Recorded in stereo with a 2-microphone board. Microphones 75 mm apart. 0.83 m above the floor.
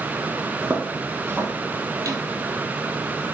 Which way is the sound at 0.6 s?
20° right (ahead or behind).